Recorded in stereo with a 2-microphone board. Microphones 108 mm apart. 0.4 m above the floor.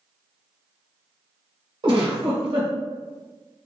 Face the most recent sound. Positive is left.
turn(degrees=-50)  # may be behind; listen again after turning